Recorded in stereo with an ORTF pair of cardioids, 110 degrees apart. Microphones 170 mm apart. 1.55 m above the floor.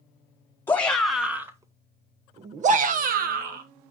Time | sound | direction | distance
0.7 | a shout | 10° left | 1.1 m